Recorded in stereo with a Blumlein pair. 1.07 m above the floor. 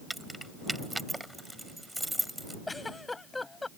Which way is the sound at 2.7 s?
10° left.